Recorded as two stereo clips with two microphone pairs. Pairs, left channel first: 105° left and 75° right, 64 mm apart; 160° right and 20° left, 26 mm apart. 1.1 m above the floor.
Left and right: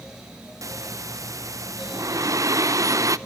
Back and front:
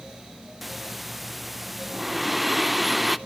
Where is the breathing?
65° right, 0.5 m.